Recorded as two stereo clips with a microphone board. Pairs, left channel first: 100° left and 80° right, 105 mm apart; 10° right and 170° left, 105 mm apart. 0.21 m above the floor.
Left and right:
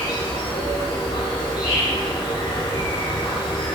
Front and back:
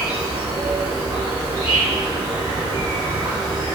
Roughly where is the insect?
Behind left.